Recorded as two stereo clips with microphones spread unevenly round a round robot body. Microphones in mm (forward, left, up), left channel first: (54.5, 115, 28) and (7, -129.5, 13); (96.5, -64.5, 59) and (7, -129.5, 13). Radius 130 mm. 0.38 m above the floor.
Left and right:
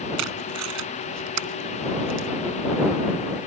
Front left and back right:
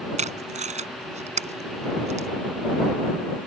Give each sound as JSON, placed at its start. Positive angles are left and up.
{"t": 0.2, "sound": "tape being pulled", "azimuth_deg": -130}